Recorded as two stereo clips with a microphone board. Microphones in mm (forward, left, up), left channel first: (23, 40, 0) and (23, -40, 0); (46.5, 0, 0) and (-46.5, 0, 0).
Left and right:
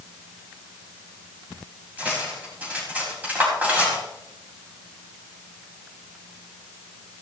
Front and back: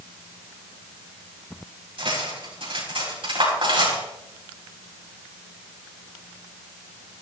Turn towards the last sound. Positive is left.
turn(degrees=-160)